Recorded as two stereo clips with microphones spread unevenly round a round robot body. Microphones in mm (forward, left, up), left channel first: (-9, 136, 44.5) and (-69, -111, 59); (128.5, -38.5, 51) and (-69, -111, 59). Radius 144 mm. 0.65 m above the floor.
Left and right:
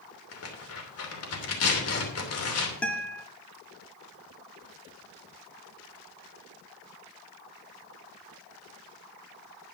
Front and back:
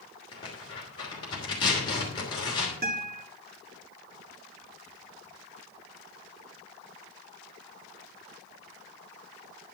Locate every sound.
0.3 s tearing paper: 90° left, 3 m
2.8 s a guitar: 160° left, 2.0 m